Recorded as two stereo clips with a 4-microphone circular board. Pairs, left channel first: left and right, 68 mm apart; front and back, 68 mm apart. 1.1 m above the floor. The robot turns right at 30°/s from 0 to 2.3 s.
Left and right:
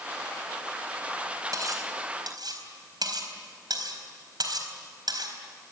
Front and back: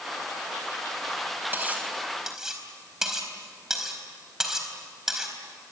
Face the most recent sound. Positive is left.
turn(degrees=-100)